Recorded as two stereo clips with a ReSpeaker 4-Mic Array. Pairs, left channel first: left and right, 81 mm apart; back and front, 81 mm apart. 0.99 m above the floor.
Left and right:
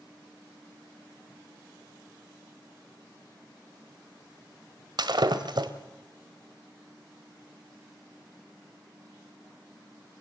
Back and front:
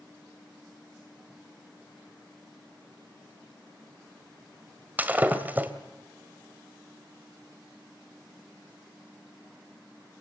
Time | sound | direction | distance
5.0 | breaking glass | 70° right | 1.7 m